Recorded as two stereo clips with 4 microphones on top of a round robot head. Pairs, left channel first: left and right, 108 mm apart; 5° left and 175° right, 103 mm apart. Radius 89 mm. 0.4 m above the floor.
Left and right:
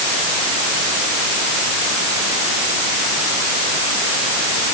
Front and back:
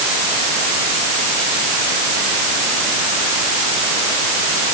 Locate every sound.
Only background noise.